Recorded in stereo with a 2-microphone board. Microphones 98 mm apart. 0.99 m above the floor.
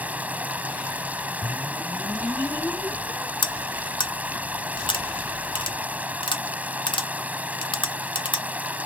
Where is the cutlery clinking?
55° left (ahead or behind).